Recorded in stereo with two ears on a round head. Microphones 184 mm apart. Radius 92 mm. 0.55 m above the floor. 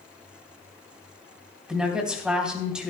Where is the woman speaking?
5° right (ahead or behind), 3 m.